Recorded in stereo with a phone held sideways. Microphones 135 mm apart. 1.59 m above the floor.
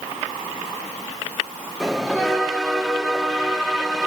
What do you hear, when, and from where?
1.8 s a bell: centre (ahead or behind), 2.5 m